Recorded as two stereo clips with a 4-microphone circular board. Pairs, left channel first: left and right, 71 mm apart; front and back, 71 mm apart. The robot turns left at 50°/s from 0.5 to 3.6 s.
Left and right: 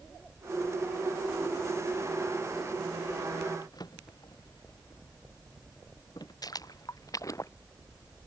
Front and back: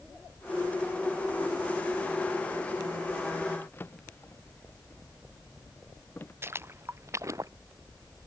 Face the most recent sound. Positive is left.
turn(degrees=135)